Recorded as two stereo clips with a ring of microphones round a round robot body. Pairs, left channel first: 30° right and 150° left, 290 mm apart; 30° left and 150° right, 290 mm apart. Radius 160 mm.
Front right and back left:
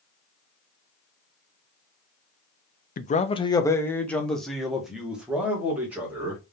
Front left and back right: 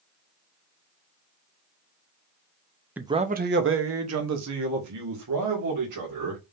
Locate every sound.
3.0 s a man speaking: 70° right, 0.5 m; by 6.4 s 125° right, 2.5 m